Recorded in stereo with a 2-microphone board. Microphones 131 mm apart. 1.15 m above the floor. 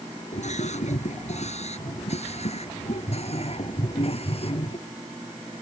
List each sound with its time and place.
0.3 s a scream: 60° left (ahead or behind); by 4.8 s 50° left (ahead or behind)